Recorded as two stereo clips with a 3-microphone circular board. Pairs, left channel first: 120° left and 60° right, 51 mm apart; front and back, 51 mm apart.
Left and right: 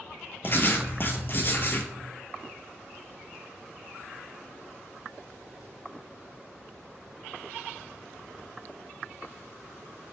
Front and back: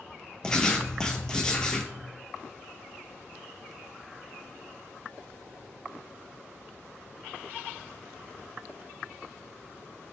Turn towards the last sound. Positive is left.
turn(degrees=75)